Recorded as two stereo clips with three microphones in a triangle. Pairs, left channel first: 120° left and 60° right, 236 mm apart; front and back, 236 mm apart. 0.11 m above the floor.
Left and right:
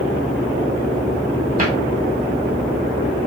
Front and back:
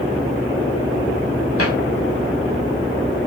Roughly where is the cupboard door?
Ahead.